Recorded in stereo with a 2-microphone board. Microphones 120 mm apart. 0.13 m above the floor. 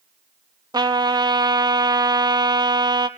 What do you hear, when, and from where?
0.7 s a trumpet: 35° right (ahead or behind), 0.6 m